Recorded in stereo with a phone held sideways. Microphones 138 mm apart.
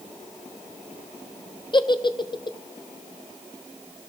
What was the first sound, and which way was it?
A giggle, 35° left (ahead or behind).